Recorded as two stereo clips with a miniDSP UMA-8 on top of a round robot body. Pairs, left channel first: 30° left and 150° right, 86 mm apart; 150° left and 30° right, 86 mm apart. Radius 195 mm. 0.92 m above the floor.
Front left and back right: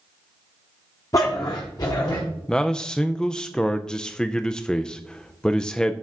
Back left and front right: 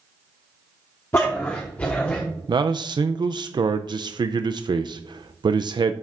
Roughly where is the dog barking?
Left.